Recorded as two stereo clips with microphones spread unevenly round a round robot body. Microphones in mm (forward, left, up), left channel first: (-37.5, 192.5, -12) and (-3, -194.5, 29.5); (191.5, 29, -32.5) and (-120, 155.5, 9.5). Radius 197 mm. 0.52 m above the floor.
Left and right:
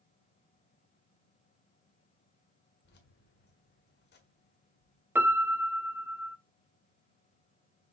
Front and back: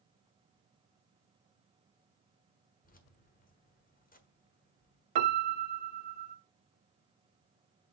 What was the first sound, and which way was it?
Keys jangling, 35° left.